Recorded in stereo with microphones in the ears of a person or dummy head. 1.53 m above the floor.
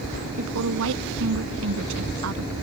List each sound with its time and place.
0.4 s a woman speaking: 70° right (ahead or behind)